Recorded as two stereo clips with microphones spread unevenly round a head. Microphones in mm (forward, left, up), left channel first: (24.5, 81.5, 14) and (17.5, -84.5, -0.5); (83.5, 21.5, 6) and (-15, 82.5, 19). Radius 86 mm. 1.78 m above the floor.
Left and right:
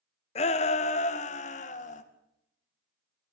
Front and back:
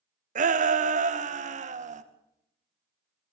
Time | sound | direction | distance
0.3 | a shout | 145° left | 1.4 m